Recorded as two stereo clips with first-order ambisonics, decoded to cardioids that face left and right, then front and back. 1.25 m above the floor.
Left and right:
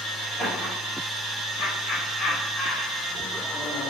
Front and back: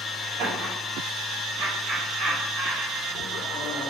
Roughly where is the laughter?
Behind.